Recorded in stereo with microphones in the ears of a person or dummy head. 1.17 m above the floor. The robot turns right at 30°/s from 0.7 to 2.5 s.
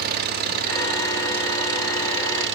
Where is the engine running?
130° right, 1.6 m; by 2.6 s 75° right, 1.6 m.